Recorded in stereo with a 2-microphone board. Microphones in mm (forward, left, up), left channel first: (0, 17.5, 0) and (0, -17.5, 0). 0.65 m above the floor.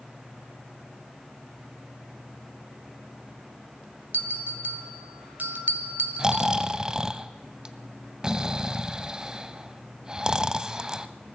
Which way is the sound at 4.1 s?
55° right (ahead or behind).